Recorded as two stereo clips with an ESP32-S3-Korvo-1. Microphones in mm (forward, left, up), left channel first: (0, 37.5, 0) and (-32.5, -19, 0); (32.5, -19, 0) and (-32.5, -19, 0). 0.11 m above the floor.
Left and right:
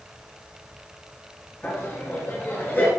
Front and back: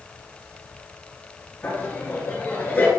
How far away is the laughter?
About 1.7 m.